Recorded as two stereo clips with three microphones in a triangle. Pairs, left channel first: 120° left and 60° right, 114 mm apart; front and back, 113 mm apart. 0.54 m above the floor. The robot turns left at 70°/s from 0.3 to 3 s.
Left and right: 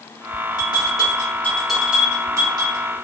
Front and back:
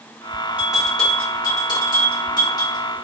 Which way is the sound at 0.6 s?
110° left.